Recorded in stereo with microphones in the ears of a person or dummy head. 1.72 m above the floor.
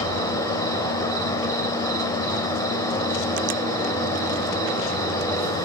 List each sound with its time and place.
0.0 s an insect: 20° left (ahead or behind), 2.5 m